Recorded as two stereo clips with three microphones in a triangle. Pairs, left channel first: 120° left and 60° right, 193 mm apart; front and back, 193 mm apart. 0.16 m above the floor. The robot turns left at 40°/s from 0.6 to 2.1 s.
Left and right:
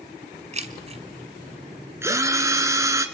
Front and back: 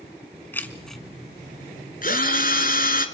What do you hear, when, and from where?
0.5 s keys jangling: 75° right, 1.2 m; by 1.0 s 90° right, 1.2 m
2.0 s a drill: 15° left, 1.5 m; by 3.1 s 10° left, 1.5 m